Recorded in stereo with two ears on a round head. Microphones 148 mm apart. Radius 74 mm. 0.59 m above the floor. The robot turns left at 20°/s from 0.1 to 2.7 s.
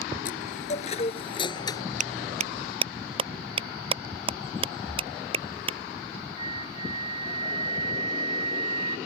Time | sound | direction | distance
0.2 | a chime | 55° left | ?
2.0 | a clap | 50° right (ahead or behind) | ?
4.9 | breathing | 5° right (ahead or behind) | ?
6.4 | a flute | 35° right (ahead or behind) | ?